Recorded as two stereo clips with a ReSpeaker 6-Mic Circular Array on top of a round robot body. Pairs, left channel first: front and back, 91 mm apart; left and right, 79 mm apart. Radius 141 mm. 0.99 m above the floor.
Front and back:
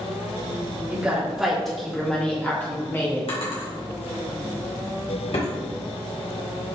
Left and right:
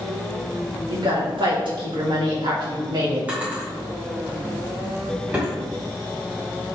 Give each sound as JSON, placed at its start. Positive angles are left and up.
{"t": 0.9, "sound": "a woman speaking", "azimuth_deg": -100, "distance_m": 3.0}
{"t": 3.3, "sound": "a drawer", "azimuth_deg": -15, "distance_m": 2.5}